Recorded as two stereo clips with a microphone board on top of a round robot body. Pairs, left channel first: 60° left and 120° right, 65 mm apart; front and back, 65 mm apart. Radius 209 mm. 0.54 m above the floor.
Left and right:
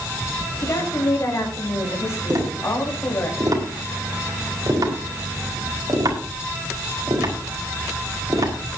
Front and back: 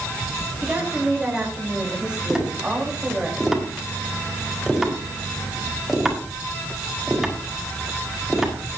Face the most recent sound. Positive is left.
turn(degrees=-95)